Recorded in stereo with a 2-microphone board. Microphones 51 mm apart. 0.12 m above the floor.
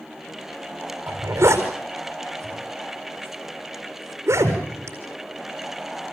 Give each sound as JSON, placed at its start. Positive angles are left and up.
{"t": 1.1, "sound": "a zipper", "side_deg": -60, "distance_m": 4.5}